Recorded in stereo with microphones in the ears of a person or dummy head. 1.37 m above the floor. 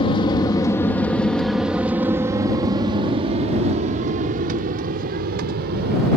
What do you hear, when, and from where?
0.0 s an aircraft: 25° left (ahead or behind); by 6.2 s 60° right (ahead or behind)